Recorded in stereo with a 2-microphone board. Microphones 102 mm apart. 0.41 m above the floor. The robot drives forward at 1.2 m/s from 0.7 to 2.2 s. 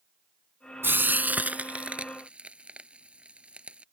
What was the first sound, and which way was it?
Frying, 20° right (ahead or behind).